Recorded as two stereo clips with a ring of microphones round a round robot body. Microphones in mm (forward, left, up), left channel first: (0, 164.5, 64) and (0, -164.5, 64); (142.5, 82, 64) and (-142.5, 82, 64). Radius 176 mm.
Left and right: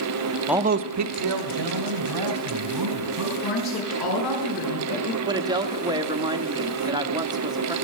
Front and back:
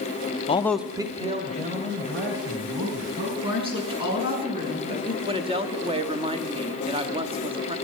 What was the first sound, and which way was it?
A man speaking, straight ahead.